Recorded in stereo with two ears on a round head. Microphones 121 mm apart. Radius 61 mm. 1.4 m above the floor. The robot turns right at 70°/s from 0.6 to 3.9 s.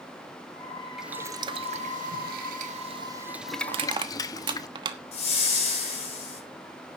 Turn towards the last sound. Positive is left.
turn(degrees=55)  # may be behind; listen again after turning